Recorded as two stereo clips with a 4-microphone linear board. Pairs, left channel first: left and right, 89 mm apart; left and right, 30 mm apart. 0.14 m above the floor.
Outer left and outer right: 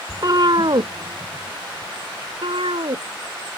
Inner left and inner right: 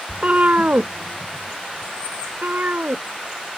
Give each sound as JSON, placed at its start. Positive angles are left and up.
{"t": 0.1, "sound": "a cat meowing", "side_deg": -40}